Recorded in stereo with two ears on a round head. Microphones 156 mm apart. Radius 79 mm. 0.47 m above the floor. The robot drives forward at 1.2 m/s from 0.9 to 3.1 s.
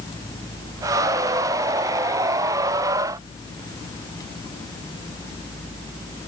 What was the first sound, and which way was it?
Only background noise.